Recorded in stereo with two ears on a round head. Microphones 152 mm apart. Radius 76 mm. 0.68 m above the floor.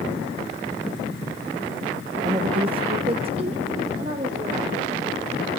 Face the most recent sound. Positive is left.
turn(degrees=-30)  # may be behind; listen again after turning